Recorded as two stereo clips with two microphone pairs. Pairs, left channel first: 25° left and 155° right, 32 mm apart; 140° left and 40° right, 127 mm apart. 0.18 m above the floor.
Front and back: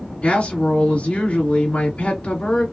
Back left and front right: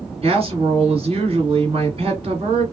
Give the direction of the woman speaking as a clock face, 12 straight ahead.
12 o'clock.